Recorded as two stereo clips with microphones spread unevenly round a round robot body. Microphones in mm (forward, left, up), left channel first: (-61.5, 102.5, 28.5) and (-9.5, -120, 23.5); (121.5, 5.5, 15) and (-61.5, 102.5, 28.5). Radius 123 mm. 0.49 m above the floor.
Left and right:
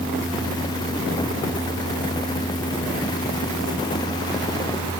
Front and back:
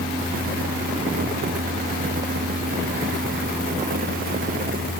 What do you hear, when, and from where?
Only background noise.